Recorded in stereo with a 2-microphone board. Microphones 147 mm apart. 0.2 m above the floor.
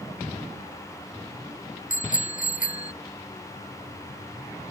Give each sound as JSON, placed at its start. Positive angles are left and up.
{"t": 1.9, "sound": "a bicycle bell", "side_deg": 60}